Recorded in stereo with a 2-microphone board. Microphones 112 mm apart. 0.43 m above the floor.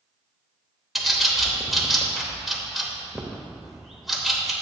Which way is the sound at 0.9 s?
Centre (ahead or behind).